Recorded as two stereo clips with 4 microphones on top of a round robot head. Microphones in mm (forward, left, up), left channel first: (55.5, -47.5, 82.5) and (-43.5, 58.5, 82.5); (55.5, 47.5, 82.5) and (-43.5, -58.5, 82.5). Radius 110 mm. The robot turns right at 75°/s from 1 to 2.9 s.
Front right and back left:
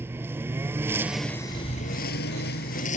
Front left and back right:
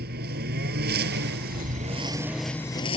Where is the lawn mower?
150° right; by 3.0 s 10° right.